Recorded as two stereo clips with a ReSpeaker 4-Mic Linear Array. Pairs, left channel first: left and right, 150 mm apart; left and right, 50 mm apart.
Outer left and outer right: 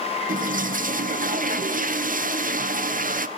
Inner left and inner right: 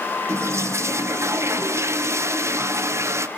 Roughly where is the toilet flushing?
Right.